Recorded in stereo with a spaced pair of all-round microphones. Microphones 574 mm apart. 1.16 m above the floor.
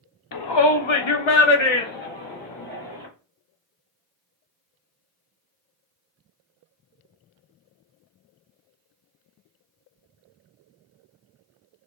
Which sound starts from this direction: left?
A shout, at 0.3 s.